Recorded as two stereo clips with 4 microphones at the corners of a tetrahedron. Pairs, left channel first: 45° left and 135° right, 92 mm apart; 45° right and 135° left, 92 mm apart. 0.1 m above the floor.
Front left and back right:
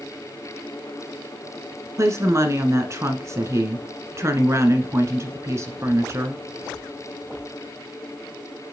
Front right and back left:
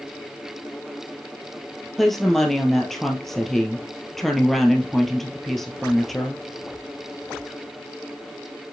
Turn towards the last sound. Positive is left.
turn(degrees=-130)